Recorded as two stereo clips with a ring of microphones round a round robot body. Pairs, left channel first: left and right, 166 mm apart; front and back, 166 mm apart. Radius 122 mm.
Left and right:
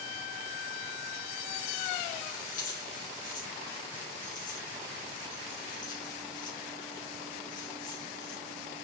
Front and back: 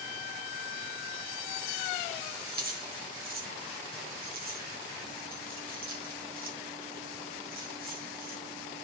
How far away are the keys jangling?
About 2.5 m.